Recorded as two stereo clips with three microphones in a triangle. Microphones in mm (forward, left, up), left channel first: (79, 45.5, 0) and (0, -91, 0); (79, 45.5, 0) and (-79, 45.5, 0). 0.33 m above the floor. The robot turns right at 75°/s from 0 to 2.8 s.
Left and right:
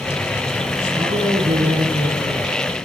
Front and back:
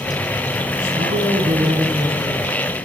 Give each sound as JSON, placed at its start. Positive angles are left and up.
{"t": 0.9, "sound": "a man speaking", "azimuth_deg": 175, "distance_m": 2.5}